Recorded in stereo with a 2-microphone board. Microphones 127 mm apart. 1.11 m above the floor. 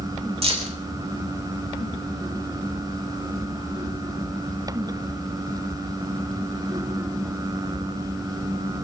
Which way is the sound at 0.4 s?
50° right (ahead or behind).